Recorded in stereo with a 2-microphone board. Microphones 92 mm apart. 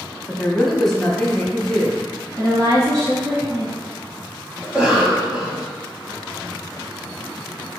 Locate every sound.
0.3 s a woman speaking: 5° left (ahead or behind), 1.0 m
2.4 s a woman speaking: 40° right (ahead or behind), 1.6 m
4.6 s a cough: 10° right (ahead or behind), 1.1 m